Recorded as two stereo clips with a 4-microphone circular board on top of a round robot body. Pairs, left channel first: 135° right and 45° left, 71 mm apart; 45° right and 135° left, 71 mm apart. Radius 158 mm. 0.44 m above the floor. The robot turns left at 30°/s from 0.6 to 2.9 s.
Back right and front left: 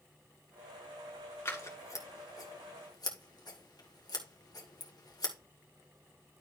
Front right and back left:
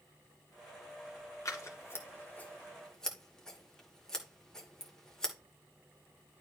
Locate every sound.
1.4 s scissors: 80° right, 2 m; by 5.3 s 125° right, 2 m